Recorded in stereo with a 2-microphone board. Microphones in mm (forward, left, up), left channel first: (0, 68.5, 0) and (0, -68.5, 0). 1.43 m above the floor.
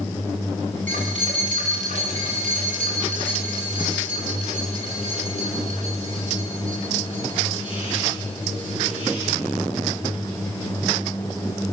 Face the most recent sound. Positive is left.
turn(degrees=-70)  # may be behind; listen again after turning